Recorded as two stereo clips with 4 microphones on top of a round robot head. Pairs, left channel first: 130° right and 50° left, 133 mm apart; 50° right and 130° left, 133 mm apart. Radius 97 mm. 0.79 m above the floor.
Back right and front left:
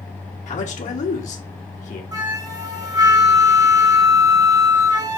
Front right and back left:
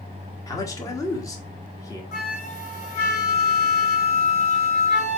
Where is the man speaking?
110° right, 1.5 m.